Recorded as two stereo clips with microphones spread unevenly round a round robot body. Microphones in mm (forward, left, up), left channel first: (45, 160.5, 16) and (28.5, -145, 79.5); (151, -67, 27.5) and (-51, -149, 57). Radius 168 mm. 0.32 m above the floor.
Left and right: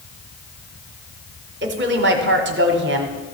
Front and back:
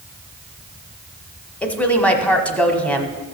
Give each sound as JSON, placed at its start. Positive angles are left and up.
{"t": 1.6, "sound": "a woman speaking", "azimuth_deg": -45, "distance_m": 1.1}